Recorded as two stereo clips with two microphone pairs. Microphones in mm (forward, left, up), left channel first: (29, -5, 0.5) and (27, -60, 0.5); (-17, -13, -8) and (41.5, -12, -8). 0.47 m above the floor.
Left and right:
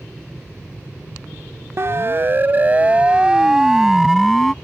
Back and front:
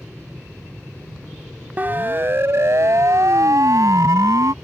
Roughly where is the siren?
Ahead right.